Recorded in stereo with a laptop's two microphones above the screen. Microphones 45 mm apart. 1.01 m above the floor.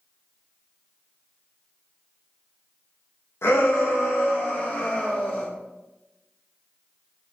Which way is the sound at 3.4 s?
80° left.